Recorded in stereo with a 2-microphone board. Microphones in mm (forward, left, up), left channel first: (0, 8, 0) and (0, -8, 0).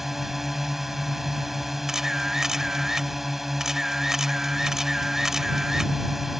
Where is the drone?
20° right (ahead or behind).